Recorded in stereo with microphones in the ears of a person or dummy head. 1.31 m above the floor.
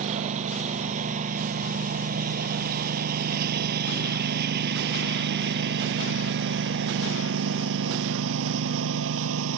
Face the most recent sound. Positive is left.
turn(degrees=-75)  # may be behind; listen again after turning